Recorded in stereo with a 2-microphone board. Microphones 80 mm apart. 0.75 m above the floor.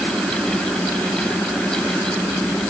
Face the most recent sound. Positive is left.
No sound to turn to.